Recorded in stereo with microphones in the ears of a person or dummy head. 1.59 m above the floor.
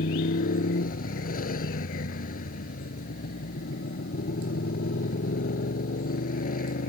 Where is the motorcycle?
50° left (ahead or behind).